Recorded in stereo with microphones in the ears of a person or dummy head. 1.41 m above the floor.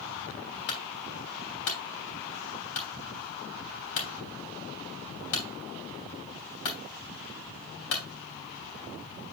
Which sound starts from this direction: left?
A clunk, at 0.7 s.